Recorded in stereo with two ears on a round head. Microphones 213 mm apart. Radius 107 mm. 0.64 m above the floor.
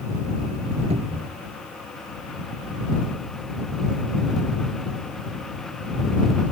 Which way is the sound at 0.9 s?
25° right (ahead or behind).